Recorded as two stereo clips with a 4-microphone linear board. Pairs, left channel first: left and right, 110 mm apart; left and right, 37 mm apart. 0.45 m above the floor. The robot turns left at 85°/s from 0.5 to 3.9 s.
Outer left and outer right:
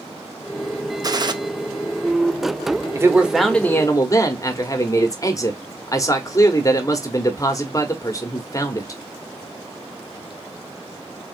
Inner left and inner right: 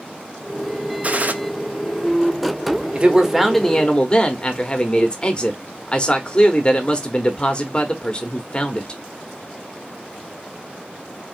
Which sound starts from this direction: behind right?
A man speaking, at 3.0 s.